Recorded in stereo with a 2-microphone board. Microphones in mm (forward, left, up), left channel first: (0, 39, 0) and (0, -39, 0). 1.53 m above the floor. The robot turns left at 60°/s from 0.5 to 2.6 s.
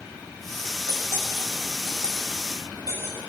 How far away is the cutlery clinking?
About 5.5 m.